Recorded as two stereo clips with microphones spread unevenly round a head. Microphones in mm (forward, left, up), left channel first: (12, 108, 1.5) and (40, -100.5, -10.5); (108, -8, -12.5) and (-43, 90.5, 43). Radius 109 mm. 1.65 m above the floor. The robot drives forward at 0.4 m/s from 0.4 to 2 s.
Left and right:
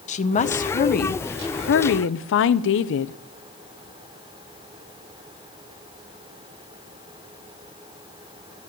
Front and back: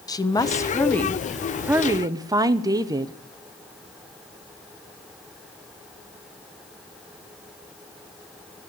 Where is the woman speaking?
45° left, 0.9 m; by 3.1 s 90° left, 0.7 m.